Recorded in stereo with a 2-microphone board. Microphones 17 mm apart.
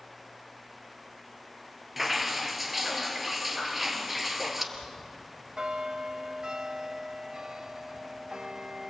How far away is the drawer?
I don't hear a drawer.